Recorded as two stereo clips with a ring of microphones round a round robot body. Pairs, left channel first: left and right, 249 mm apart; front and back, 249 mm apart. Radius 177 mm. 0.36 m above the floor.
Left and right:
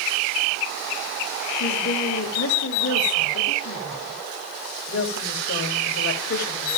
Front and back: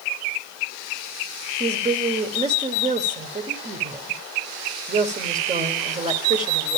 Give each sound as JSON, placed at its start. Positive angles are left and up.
{"t": 1.6, "sound": "a woman speaking", "azimuth_deg": 125, "distance_m": 1.5}